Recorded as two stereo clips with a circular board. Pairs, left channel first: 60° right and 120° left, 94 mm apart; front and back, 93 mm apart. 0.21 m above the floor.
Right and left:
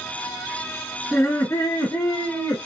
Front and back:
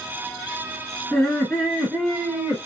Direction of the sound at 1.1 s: 70° right.